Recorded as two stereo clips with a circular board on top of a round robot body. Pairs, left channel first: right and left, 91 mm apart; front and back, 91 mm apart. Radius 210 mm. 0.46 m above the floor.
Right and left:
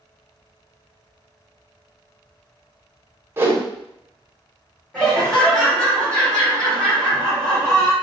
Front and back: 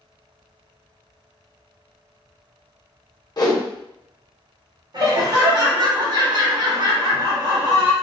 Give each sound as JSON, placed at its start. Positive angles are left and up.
{"t": 3.4, "sound": "a whoosh", "azimuth_deg": 30, "distance_m": 1.3}
{"t": 4.9, "sound": "laughter", "azimuth_deg": -170, "distance_m": 1.8}